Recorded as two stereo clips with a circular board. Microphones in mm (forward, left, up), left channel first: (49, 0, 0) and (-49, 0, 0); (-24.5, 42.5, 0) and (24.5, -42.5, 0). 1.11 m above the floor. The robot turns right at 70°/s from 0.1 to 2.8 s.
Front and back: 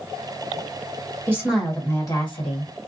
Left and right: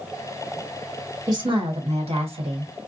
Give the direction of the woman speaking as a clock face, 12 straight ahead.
4 o'clock.